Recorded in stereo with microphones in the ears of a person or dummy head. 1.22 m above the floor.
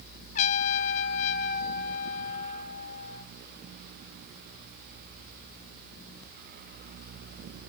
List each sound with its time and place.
0.3 s a trumpet: 45° left (ahead or behind), 1.2 m